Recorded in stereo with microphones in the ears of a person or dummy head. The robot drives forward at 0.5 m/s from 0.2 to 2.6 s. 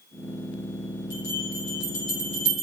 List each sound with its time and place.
1.1 s a bell: 65° left (ahead or behind), 4.5 m; by 2.6 s 55° left (ahead or behind), 5 m